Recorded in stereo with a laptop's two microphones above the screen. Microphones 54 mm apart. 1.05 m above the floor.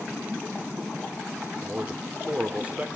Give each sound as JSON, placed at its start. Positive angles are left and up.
{"t": 1.6, "sound": "a man speaking", "side_deg": -25, "distance_m": 2.5}